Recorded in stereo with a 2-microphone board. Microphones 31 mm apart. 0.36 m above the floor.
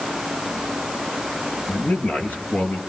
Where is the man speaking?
65° left (ahead or behind), 7 m.